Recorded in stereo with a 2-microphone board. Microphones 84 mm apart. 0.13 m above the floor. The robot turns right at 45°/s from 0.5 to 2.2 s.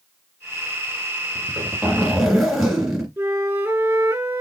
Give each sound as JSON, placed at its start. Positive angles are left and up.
{"t": 1.4, "sound": "a zipper", "azimuth_deg": -45, "distance_m": 1.9}
{"t": 3.2, "sound": "a flute", "side_deg": -25, "distance_m": 1.8}